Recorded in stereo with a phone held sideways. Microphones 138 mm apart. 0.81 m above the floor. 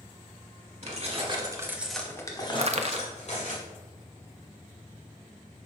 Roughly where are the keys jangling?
Right.